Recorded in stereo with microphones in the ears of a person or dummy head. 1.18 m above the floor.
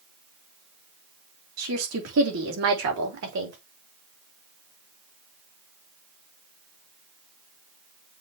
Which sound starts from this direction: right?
A woman speaking, at 1.6 s.